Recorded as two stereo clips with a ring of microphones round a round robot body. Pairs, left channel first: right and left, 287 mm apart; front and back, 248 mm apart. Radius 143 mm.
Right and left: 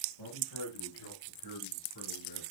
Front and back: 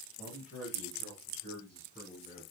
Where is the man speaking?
90° right, 5.5 m; by 2.4 s 105° right, 7 m.